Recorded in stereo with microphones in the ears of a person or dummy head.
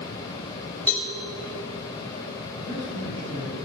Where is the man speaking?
20° right (ahead or behind), 5.5 m.